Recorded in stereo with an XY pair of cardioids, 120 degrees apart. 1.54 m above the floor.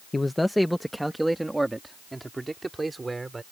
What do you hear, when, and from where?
0.1 s a man speaking: 15° left; by 3.4 s 20° right